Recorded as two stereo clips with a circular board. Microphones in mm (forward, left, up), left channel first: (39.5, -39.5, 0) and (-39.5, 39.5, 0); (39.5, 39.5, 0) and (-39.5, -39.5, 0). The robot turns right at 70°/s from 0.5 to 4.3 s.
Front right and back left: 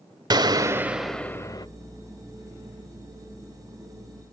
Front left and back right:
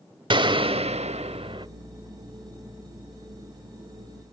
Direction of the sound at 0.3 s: 175° right.